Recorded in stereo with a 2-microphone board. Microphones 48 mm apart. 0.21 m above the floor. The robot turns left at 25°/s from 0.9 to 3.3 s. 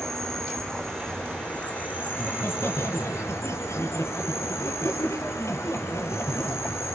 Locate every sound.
0.0 s an insect: 170° left, 4.5 m; by 7.0 s 110° left, 4.5 m
2.1 s laughter: 40° left (ahead or behind), 6.5 m; by 6.8 s 70° left (ahead or behind), 6.5 m